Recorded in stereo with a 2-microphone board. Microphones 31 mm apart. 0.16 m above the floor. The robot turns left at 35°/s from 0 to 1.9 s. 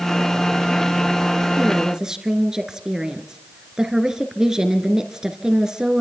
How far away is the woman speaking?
About 2 m.